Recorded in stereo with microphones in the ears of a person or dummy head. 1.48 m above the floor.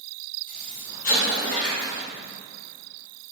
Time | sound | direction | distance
0.5 | an explosion | 45° left (ahead or behind) | 1.0 m